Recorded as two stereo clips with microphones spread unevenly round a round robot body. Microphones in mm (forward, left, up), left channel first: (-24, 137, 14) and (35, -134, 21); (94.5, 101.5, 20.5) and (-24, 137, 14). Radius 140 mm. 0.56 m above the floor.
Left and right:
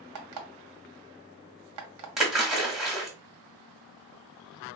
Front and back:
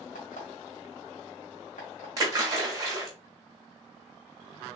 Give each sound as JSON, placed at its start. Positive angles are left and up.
{"t": 0.1, "sound": "an alarm clock", "azimuth_deg": -60, "distance_m": 1.0}
{"t": 2.2, "sound": "a splash", "azimuth_deg": -170, "distance_m": 1.3}